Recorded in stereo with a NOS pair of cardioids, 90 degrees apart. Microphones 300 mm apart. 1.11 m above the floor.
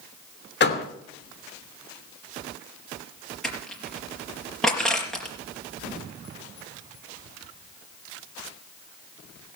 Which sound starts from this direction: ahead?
Crushing, at 3.4 s.